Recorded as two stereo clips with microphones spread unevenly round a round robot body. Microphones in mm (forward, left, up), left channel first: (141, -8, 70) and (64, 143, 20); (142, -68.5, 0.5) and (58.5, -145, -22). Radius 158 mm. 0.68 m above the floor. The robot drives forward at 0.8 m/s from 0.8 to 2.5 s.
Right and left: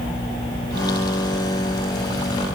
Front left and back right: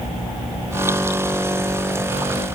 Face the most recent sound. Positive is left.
No sound to turn to.